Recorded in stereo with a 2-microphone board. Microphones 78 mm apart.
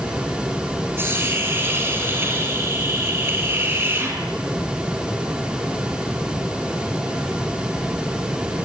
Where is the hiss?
30° right (ahead or behind), 7.5 m.